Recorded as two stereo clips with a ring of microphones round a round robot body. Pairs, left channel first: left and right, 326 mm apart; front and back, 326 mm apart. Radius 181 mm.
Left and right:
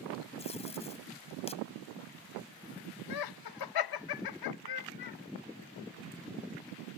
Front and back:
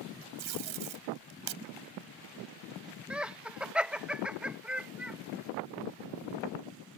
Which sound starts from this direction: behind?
Tape being pulled, at 0.4 s.